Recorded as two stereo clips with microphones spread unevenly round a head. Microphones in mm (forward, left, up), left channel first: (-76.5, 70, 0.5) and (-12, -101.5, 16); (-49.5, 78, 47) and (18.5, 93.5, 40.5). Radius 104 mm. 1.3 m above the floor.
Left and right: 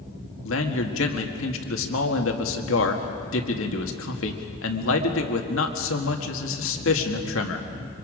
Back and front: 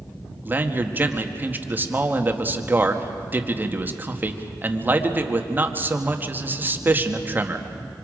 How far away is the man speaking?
About 1.8 m.